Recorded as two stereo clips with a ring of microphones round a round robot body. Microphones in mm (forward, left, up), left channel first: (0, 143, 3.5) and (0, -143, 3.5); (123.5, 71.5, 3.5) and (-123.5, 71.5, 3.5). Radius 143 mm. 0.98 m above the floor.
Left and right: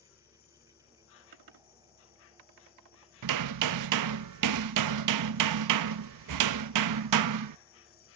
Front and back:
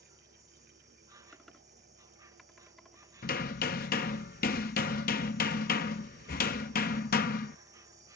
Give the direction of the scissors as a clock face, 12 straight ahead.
I don't hear scissors.